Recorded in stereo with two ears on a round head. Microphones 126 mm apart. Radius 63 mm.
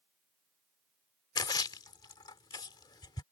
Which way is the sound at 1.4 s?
30° left (ahead or behind).